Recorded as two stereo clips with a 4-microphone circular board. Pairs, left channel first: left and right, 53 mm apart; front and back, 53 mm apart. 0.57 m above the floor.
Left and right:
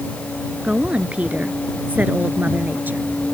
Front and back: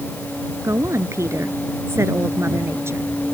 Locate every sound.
0.6 s a woman speaking: 160° right; by 3.1 s 145° right